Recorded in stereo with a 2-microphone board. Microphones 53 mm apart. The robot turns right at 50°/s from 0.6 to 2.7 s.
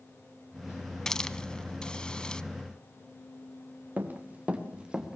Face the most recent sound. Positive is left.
turn(degrees=-10)  # may be behind; listen again after turning